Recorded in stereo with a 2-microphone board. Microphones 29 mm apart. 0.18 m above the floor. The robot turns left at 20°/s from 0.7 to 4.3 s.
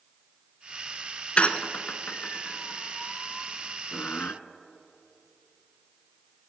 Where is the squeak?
45° left (ahead or behind), 0.5 m; by 4.3 s 60° left (ahead or behind), 0.5 m.